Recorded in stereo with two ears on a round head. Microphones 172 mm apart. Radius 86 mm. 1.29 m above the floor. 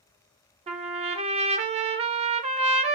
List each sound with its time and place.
0.7 s a trumpet: 35° right (ahead or behind), 0.5 m